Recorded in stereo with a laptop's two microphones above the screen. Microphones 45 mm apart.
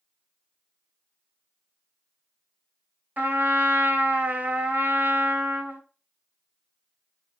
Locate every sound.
3.2 s a trumpet: 40° right (ahead or behind), 1.0 m